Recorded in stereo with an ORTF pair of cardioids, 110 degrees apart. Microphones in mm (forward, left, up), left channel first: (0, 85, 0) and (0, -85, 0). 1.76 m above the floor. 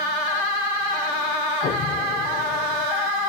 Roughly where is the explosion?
Ahead left.